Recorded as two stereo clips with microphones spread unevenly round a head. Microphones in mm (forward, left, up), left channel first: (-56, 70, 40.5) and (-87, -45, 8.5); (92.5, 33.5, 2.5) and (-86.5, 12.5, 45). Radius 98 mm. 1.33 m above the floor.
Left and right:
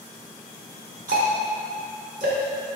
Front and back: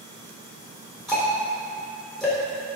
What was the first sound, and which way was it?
Ticking, 80° right.